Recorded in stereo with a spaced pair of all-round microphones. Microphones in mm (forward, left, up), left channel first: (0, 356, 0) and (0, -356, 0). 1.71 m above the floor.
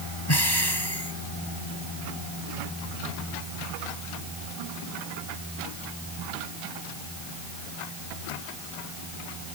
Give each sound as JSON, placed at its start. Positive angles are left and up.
{"t": 0.3, "sound": "breathing", "side_deg": 35}